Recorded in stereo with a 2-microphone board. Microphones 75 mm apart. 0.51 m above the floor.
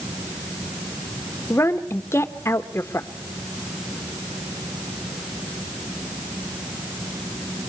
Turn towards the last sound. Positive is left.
turn(degrees=40)  # may be behind; listen again after turning